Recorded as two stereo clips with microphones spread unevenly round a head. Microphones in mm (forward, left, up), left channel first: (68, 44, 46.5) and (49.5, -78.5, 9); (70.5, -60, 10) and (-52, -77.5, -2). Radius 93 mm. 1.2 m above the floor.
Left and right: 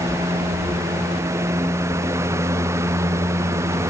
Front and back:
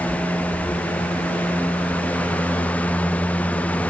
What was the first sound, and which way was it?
Only background noise.